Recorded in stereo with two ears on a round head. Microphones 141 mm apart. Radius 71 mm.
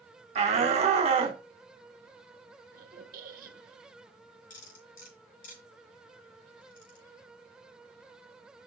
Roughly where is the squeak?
Right.